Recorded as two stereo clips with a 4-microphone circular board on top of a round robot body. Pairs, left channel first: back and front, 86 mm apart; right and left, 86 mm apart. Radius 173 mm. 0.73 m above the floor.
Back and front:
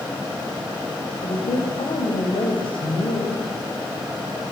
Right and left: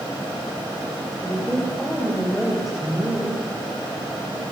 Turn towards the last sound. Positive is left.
turn(degrees=180)